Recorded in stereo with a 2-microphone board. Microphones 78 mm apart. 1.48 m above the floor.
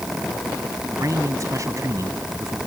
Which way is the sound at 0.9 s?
40° right (ahead or behind).